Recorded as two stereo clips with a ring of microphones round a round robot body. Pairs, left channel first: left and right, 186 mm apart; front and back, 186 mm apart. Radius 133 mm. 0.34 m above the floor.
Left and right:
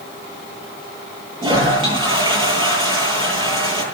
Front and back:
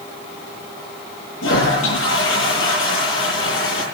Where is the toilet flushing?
25° right, 10 m.